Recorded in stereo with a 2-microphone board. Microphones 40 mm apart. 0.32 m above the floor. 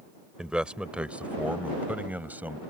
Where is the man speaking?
20° right (ahead or behind); by 2.6 s 45° right (ahead or behind).